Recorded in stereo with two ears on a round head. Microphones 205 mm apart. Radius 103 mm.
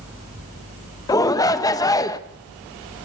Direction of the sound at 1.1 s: 15° left (ahead or behind).